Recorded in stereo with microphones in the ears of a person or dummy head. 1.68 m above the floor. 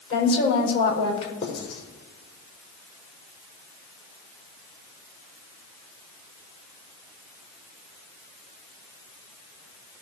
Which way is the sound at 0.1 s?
35° left (ahead or behind).